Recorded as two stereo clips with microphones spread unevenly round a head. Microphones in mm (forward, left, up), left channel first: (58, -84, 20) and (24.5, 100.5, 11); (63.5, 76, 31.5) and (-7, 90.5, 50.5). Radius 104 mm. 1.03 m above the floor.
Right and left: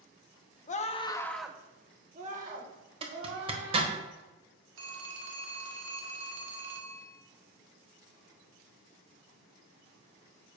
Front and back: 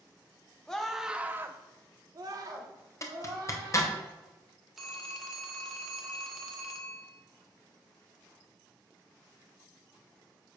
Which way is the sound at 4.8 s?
85° left.